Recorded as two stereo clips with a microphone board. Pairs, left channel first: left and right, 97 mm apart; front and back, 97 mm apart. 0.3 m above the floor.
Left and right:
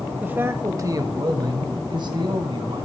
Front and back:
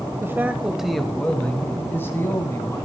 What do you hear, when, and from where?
0.2 s a man speaking: 145° right, 1.2 m; by 2.9 s 55° right, 2.5 m